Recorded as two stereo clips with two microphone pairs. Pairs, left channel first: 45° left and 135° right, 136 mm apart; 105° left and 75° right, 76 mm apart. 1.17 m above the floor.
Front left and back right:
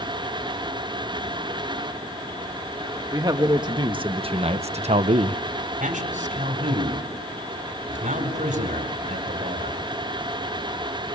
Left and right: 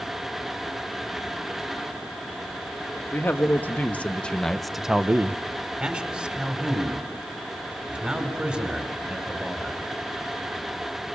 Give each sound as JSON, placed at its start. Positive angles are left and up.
{"t": 3.1, "sound": "a man speaking", "azimuth_deg": 165, "distance_m": 2.0}
{"t": 5.8, "sound": "a man speaking", "azimuth_deg": -150, "distance_m": 4.5}